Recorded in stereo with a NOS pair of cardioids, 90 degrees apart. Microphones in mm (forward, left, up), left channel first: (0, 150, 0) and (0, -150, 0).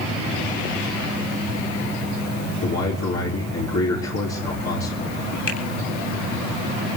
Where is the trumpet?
No trumpet in this recording.